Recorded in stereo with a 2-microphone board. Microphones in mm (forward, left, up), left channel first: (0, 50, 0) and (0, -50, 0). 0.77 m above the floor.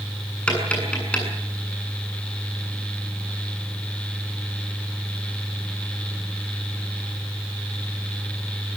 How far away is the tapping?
About 7.5 m.